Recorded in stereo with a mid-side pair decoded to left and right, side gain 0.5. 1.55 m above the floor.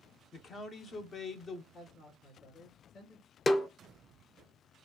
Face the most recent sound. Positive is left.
turn(degrees=30)